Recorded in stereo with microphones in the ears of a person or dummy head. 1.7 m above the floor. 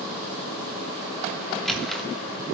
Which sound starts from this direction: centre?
A squeak, at 1.5 s.